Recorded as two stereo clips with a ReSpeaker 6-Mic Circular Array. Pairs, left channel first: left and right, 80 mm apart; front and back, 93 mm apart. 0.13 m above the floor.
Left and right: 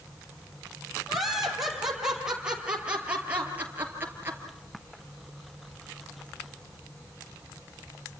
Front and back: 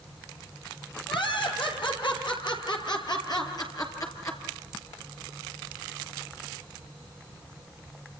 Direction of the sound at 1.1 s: Straight ahead.